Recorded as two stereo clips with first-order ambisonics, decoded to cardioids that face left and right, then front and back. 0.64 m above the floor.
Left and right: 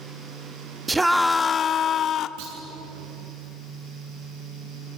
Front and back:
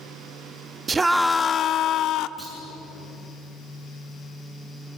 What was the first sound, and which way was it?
A scream, 145° right.